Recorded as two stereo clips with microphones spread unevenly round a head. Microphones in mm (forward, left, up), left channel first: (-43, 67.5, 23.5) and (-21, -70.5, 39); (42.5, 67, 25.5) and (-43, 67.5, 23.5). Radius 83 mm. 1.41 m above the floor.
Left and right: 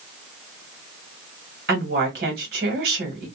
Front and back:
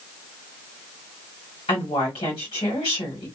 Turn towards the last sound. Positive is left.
turn(degrees=-55)